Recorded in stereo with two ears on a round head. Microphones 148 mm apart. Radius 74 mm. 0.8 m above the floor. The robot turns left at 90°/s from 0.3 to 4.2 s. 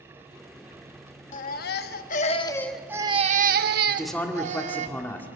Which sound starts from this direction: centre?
A man speaking, at 3.9 s.